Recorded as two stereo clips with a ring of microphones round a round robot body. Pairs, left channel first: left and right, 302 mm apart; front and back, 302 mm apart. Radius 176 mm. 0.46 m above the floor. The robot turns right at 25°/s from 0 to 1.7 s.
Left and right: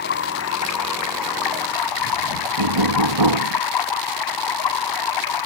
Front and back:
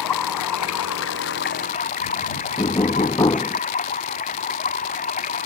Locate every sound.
0.0 s running water: 25° left; by 5.5 s 70° left
2.6 s knocking: 75° right